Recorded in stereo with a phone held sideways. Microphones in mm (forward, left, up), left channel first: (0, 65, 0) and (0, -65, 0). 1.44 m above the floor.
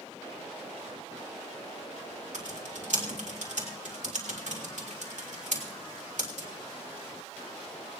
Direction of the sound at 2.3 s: 75° right (ahead or behind).